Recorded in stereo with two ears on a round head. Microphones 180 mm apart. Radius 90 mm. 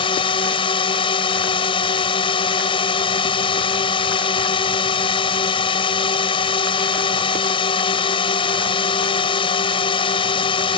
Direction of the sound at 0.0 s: 25° left (ahead or behind).